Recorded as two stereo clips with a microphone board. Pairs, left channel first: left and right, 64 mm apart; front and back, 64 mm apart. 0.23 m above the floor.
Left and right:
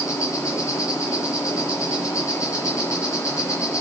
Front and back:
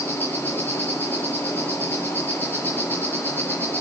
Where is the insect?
60° left, 5.5 m.